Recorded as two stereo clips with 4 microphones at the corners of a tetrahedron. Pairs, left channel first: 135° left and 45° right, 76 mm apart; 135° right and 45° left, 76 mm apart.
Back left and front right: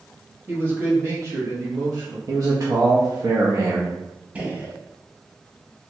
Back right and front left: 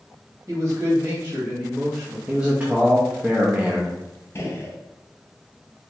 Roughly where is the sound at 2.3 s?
Ahead right.